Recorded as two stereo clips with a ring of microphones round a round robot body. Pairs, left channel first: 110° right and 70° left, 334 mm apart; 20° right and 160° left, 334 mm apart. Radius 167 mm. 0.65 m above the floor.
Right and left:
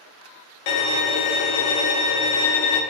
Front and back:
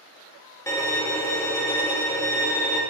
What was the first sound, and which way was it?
A violin, 105° right.